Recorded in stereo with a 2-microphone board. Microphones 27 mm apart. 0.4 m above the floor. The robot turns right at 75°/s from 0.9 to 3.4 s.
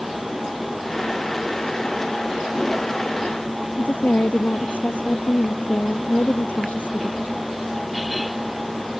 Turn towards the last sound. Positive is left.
turn(degrees=80)